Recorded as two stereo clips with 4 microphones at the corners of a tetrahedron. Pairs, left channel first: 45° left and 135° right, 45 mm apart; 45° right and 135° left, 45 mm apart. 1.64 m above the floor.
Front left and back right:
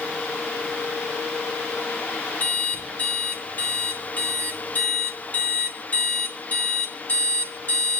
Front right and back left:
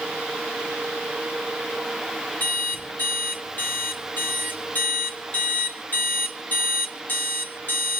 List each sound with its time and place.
2.4 s an alarm clock: straight ahead, 2.5 m